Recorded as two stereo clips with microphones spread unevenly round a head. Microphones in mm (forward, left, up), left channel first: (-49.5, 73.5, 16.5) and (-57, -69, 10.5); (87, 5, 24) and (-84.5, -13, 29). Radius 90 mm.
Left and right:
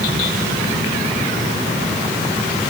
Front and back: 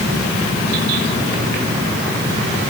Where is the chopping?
I don't hear chopping.